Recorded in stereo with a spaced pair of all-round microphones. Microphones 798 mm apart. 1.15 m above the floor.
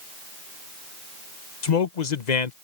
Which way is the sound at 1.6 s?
55° left (ahead or behind).